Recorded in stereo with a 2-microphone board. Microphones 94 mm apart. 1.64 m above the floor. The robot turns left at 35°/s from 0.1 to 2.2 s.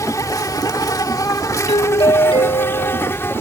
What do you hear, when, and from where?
0.0 s an insect: 115° left; by 3.4 s 45° left
1.7 s a doorbell: 85° left; by 3.1 s 65° left (ahead or behind)